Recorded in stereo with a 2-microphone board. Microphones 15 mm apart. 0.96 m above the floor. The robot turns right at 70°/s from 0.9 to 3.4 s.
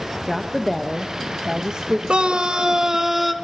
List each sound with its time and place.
0.3 s a woman speaking: 170° right, 1.1 m; by 2.0 s 95° right, 1.1 m
2.1 s a scream: 90° right, 1.5 m; by 3.3 s straight ahead, 1.5 m